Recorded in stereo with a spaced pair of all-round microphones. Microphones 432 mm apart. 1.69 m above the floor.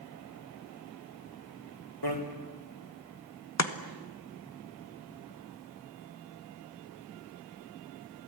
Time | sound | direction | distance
2.0 | a bicycle bell | 60° left (ahead or behind) | 3.5 m
3.6 | chopping | 40° left (ahead or behind) | 1.5 m